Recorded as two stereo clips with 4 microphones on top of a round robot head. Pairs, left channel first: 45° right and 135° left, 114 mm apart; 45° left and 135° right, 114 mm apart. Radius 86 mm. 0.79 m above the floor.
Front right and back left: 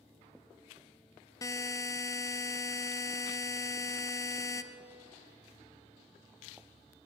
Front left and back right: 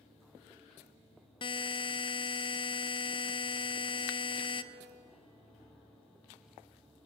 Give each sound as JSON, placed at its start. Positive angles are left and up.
{"t": 1.4, "sound": "a buzzer", "azimuth_deg": 10, "distance_m": 0.5}